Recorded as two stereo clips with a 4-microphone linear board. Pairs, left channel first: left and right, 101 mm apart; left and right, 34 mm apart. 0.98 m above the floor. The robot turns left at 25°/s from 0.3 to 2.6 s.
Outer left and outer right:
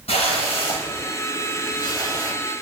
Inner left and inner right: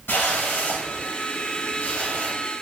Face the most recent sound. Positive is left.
turn(degrees=25)